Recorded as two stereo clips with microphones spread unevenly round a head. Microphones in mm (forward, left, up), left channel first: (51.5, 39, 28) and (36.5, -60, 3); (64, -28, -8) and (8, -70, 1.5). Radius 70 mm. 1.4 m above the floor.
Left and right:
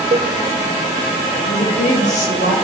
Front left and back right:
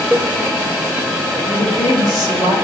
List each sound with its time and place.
0.1 s a cowbell: 70° right, 0.7 m
1.4 s a woman speaking: 80° left, 3.5 m